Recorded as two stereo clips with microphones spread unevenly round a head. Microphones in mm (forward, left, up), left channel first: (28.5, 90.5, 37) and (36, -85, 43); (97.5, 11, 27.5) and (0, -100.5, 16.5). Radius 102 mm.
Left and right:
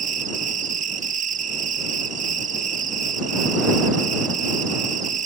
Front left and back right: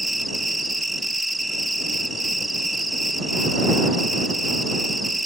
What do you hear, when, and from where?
0.0 s an insect: 40° right